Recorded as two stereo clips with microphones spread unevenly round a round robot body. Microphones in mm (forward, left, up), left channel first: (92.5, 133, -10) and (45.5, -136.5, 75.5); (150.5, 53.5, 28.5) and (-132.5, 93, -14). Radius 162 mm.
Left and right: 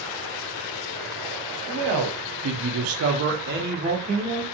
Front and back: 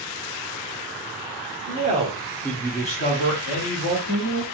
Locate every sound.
1.7 s a man speaking: 150° right, 0.9 m; by 4.4 s 20° right, 1.2 m